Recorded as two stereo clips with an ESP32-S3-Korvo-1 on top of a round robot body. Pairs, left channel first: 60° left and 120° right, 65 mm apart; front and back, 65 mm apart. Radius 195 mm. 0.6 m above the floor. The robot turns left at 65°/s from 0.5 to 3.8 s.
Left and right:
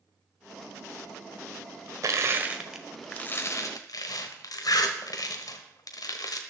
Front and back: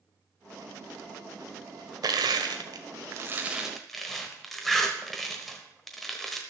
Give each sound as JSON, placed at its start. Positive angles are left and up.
{"t": 2.0, "sound": "crushing", "azimuth_deg": -160, "distance_m": 1.0}